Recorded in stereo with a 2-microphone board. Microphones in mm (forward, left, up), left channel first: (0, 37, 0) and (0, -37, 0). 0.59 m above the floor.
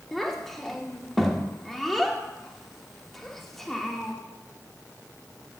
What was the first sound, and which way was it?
A child speaking, 5° left (ahead or behind).